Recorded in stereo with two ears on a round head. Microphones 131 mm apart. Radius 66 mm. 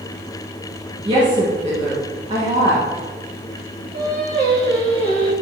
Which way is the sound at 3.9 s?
55° right (ahead or behind).